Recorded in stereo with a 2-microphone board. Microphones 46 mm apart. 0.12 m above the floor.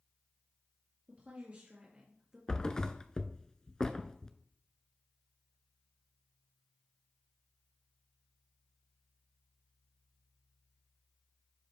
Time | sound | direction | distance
1.1 | a woman speaking | 40° right (ahead or behind) | 2.0 m
2.5 | a thud | 20° left (ahead or behind) | 0.5 m